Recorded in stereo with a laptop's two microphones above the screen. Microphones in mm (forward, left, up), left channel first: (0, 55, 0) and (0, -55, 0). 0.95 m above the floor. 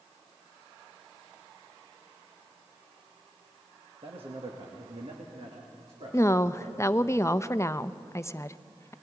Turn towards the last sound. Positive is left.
turn(degrees=25)  # may be behind; listen again after turning